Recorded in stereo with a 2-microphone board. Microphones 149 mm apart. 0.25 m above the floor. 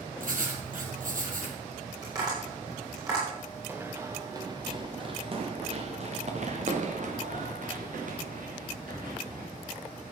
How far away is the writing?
About 2.5 m.